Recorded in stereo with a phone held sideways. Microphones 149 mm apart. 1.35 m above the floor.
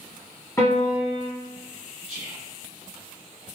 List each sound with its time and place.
0.6 s a piano: 20° left (ahead or behind), 1.1 m
2.1 s whispering: 60° right (ahead or behind), 0.7 m